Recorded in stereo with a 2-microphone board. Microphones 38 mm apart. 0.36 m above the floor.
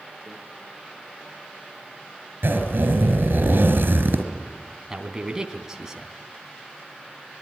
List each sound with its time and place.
0.3 s a microwave: 40° left (ahead or behind), 3.5 m
2.4 s a zipper: 75° right (ahead or behind), 4 m
4.9 s a man speaking: 15° right (ahead or behind), 3 m